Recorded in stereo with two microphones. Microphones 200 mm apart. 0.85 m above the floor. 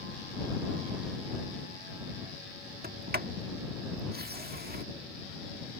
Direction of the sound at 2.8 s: 50° right (ahead or behind).